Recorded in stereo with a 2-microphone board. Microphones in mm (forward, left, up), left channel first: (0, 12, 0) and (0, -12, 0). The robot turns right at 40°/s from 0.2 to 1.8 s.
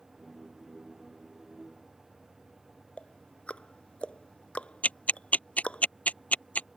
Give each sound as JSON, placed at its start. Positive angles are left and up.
{"t": 3.0, "sound": "ticking", "side_deg": 50}
{"t": 4.8, "sound": "ticking", "side_deg": 75}